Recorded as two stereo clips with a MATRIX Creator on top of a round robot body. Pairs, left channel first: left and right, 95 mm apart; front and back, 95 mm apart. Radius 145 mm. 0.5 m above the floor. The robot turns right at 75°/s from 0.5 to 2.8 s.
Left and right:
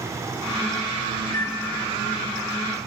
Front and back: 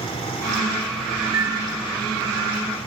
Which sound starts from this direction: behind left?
A microwave, at 1.3 s.